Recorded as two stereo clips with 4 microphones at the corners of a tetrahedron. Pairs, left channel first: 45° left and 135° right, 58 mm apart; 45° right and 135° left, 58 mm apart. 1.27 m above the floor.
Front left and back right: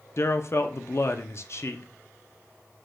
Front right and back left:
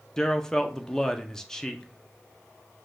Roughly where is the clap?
No clap in this recording.